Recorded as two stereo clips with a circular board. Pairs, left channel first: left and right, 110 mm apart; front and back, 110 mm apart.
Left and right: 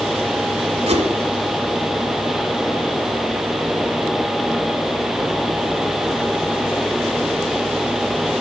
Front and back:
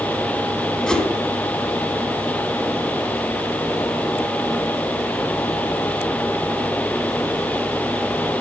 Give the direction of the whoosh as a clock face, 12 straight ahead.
3 o'clock.